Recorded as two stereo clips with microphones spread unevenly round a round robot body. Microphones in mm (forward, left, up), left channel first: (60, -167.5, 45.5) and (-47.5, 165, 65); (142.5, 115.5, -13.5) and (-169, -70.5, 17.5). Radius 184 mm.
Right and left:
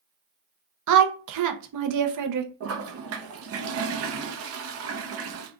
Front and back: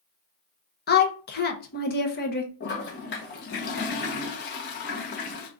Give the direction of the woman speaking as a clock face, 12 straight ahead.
9 o'clock.